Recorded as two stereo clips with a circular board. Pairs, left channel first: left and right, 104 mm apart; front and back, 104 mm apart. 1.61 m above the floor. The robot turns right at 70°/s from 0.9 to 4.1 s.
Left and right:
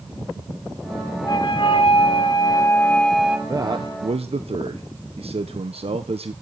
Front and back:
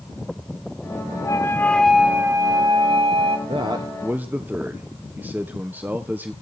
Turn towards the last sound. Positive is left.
turn(degrees=-105)